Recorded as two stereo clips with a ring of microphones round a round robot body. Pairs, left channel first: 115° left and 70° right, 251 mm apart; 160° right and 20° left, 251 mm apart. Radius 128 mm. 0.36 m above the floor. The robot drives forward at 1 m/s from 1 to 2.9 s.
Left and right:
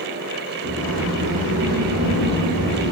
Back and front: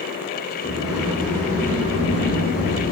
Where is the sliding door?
65° right, 4 m; by 2.9 s 95° right, 3.5 m.